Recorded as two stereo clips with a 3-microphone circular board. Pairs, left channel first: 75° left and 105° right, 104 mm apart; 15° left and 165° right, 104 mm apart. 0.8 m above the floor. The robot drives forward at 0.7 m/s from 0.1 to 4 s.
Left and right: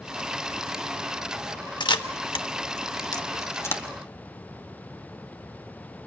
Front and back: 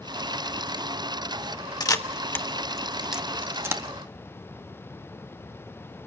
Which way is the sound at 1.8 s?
50° left.